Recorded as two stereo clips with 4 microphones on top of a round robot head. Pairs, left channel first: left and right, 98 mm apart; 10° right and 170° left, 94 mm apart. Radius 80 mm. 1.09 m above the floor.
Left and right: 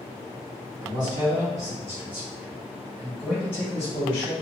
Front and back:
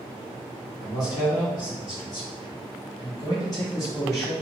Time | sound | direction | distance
0.8 | a man speaking | 55° right | 1.4 m